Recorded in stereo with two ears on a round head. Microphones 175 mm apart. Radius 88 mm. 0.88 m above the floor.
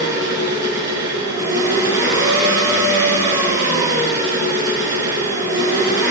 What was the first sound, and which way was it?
An engine running, 15° right (ahead or behind).